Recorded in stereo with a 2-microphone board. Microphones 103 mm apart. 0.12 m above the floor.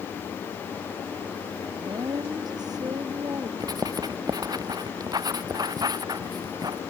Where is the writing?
40° right (ahead or behind).